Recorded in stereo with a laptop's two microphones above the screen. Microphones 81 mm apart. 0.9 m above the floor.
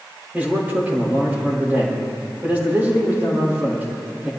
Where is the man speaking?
15° right (ahead or behind), 3.5 m.